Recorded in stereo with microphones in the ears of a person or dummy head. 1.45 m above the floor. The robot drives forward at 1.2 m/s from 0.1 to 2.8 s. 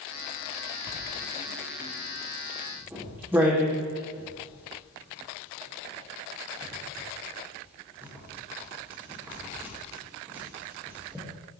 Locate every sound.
0.9 s writing: 30° right (ahead or behind), 1.2 m; by 11.2 s 10° right (ahead or behind), 3.5 m